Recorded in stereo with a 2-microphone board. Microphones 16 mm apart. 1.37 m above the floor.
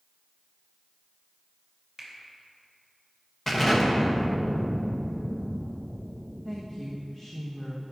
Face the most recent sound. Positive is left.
turn(degrees=25)  # may be behind; listen again after turning